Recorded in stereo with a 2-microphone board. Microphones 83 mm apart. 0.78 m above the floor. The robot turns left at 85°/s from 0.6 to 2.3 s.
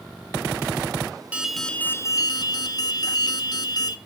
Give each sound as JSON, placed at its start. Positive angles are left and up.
{"t": 1.3, "sound": "an alarm", "azimuth_deg": -165, "distance_m": 0.9}